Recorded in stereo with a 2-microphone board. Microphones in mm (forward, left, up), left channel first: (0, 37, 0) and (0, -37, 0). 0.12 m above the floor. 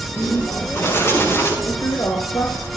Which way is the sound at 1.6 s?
45° left (ahead or behind).